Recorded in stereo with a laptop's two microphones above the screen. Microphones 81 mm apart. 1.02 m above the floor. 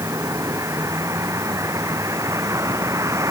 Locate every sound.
0.0 s a vehicle: 40° right (ahead or behind)